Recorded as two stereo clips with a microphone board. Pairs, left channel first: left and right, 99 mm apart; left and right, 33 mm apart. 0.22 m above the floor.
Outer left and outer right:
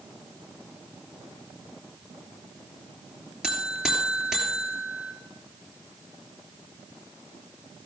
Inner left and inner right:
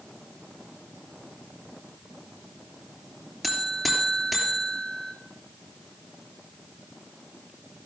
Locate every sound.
3.4 s a buzzer: 5° right (ahead or behind), 2.5 m